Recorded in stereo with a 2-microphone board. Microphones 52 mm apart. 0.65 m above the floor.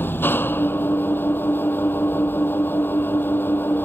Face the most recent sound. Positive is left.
turn(degrees=45)  # may be behind; listen again after turning